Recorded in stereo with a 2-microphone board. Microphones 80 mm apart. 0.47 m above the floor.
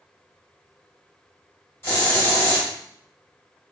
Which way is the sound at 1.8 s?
30° left (ahead or behind).